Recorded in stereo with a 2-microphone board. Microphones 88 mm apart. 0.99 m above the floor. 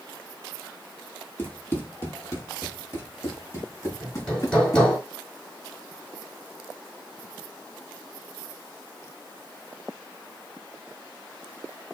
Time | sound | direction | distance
1.4 | running footsteps | 20° left (ahead or behind) | 1.6 m
4.0 | hammering | 15° left (ahead or behind) | 3.5 m